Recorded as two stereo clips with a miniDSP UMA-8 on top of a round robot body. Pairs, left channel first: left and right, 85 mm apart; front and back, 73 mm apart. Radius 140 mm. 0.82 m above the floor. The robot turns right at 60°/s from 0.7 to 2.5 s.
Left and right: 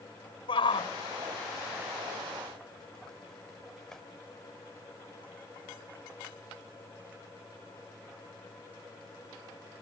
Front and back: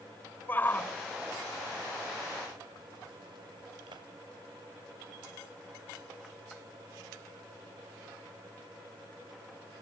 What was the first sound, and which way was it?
A shout, 65° left.